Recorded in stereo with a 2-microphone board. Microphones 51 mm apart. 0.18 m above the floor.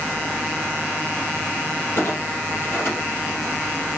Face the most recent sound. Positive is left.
turn(degrees=55)  # may be behind; listen again after turning